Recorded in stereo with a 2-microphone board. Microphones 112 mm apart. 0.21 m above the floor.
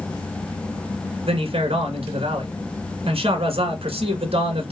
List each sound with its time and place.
1.2 s a man speaking: 60° right (ahead or behind), 2 m